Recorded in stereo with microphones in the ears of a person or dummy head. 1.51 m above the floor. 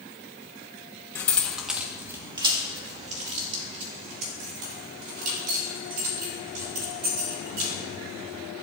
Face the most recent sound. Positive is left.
turn(degrees=-55)  # may be behind; listen again after turning